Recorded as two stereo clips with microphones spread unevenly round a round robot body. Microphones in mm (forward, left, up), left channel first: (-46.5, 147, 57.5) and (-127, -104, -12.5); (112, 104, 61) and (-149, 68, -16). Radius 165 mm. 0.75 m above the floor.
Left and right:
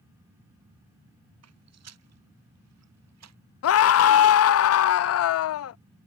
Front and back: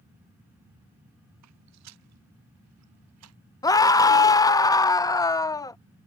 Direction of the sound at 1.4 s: 135° right.